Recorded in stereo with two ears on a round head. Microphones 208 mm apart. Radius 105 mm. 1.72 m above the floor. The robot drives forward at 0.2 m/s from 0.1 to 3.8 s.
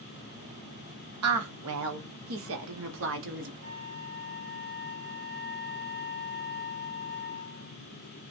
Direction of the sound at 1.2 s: 70° right (ahead or behind).